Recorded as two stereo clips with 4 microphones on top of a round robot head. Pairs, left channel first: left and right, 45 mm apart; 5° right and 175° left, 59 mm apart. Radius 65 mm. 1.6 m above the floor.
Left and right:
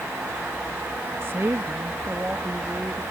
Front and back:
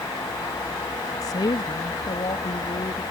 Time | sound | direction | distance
1.2 | a woman speaking | 40° right | ?